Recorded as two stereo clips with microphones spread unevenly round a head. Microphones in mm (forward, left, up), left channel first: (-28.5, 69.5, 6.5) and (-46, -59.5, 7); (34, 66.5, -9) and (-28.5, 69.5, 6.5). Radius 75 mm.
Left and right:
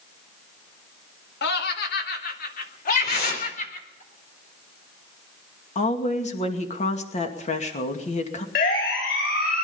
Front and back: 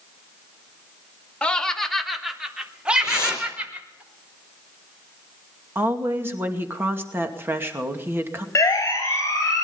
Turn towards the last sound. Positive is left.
turn(degrees=45)